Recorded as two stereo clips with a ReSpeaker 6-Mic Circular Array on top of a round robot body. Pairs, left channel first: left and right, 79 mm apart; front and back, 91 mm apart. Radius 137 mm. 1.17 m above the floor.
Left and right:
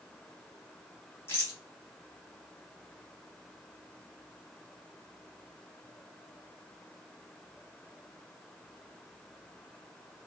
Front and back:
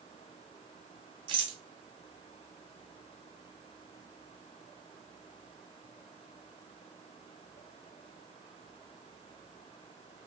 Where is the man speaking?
I don't hear a man speaking.